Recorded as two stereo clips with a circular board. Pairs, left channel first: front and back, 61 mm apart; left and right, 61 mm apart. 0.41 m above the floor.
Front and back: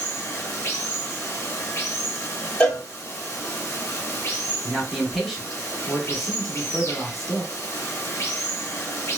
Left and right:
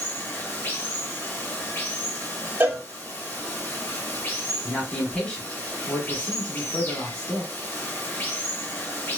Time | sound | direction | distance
0.0 | running water | 40° left | 0.8 m
2.6 | a cowbell | 55° right | 0.8 m
4.6 | a man speaking | 90° left | 1.3 m